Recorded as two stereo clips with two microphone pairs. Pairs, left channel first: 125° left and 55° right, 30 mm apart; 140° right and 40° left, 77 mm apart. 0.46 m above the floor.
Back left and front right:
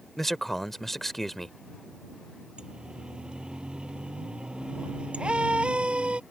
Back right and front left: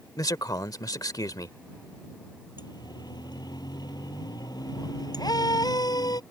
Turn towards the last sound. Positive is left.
turn(degrees=-105)